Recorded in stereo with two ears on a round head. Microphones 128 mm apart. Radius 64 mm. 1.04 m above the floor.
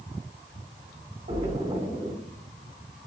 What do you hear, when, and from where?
1.3 s a splash: 55° right (ahead or behind), 1.8 m